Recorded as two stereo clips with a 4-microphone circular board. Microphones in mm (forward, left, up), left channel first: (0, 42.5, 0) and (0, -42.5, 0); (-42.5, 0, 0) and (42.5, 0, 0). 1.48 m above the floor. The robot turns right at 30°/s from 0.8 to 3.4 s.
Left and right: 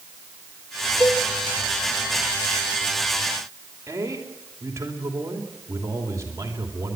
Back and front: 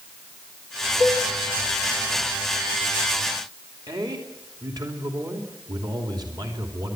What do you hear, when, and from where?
1.0 s dishes clattering: 5° left, 3 m; by 1.3 s 15° left, 3 m
3.9 s a man speaking: 35° right, 3 m